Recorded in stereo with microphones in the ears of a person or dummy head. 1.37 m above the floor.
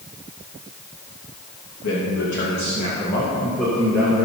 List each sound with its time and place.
1.8 s a man speaking: 70° left (ahead or behind), 2.5 m; by 4.3 s 10° right (ahead or behind), 2.5 m